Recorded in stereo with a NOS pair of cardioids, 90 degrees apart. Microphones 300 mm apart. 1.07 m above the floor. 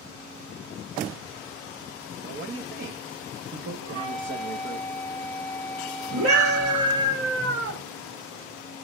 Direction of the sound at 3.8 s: 50° right.